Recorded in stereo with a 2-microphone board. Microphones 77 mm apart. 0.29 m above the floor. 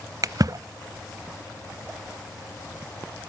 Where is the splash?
55° right (ahead or behind), 0.6 m.